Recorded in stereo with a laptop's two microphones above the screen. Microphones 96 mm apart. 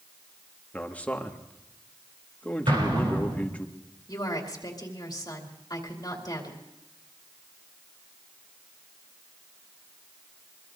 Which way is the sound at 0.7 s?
15° left (ahead or behind).